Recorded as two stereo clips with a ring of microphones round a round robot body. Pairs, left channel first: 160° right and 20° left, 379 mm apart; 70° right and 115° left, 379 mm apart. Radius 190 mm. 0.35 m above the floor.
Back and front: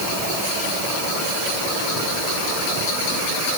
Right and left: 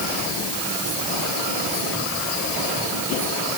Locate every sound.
Only background noise.